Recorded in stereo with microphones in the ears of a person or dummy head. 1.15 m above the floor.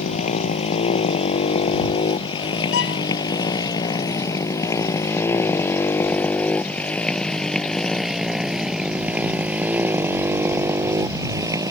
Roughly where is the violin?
Left.